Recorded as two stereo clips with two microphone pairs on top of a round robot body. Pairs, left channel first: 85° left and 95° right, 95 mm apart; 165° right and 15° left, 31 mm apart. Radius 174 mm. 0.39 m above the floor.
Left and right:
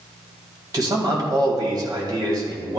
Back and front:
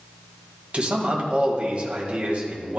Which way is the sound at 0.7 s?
45° right.